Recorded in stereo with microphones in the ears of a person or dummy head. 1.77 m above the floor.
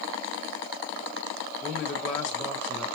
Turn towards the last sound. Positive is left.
turn(degrees=10)  # may be behind; listen again after turning